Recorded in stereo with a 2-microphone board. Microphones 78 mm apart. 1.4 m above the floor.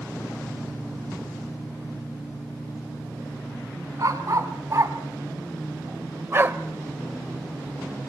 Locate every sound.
4.0 s a dog barking: 45° right (ahead or behind), 3 m; by 6.6 s 30° right (ahead or behind), 1.3 m